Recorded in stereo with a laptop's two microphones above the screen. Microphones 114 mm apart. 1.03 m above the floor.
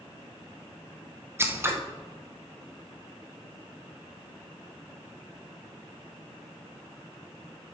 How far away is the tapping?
I don't hear tapping.